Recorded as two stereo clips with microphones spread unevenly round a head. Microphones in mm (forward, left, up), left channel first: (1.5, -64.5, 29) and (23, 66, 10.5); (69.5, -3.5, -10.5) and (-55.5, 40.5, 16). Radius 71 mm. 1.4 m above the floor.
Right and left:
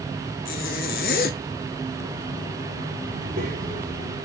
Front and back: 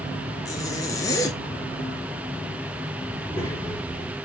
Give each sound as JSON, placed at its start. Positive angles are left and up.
{"t": 0.5, "sound": "a zipper", "azimuth_deg": -90, "distance_m": 0.6}
{"t": 3.1, "sound": "a child speaking", "azimuth_deg": 55, "distance_m": 2.5}